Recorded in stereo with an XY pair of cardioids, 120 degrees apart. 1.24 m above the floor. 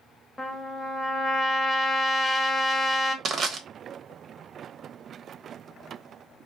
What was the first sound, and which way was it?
A trumpet, 10° left.